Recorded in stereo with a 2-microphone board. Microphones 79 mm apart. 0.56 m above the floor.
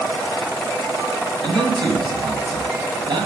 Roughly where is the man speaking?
Right.